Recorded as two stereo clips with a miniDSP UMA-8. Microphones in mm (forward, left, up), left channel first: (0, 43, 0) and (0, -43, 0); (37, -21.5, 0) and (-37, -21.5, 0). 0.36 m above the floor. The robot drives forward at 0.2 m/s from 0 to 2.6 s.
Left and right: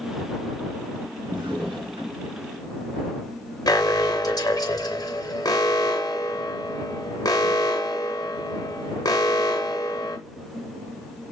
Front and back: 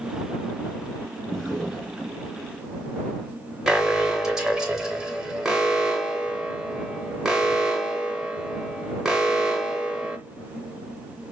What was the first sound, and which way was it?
A drawer, 90° right.